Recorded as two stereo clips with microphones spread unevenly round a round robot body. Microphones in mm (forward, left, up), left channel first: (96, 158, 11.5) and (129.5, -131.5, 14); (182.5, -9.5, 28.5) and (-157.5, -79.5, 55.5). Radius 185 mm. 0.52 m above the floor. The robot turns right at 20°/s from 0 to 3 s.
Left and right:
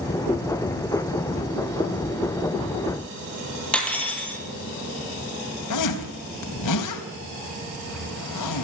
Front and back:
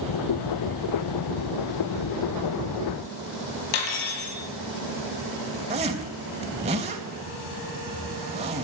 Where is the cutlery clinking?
10° left, 8 m.